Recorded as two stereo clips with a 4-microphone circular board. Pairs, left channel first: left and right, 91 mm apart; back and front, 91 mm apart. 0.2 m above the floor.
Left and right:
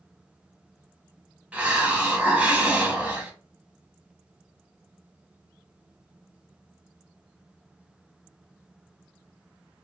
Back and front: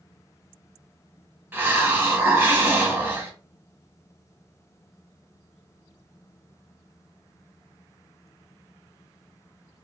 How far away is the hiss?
About 0.7 m.